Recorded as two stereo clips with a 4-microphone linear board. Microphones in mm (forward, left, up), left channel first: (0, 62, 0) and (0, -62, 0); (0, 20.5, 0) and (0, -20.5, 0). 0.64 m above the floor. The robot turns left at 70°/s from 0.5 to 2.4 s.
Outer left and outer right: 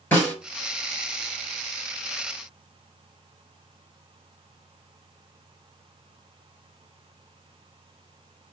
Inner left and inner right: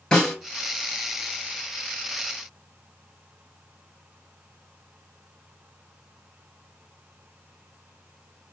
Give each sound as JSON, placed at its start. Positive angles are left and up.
{"t": 0.1, "sound": "a snare drum", "side_deg": 20, "distance_m": 3.0}